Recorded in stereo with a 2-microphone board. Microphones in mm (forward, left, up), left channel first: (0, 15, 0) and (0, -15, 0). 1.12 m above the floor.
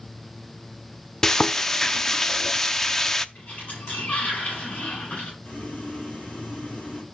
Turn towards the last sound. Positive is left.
turn(degrees=60)  # may be behind; listen again after turning